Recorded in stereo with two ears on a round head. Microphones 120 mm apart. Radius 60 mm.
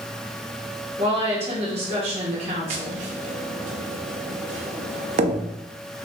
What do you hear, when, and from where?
1.0 s a woman speaking: 45° right (ahead or behind), 1.2 m
2.7 s tapping: 55° right (ahead or behind), 0.6 m